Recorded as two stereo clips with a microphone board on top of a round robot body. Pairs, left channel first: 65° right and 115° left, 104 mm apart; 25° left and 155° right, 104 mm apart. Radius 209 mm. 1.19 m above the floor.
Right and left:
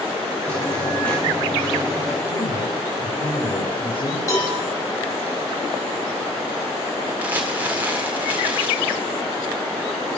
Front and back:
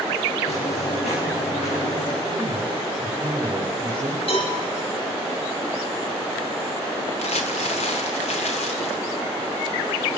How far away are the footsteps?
About 8 m.